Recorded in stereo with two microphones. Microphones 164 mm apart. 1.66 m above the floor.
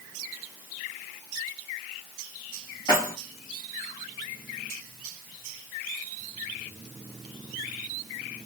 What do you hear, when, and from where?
2.9 s keys jangling: 25° left (ahead or behind), 1.9 m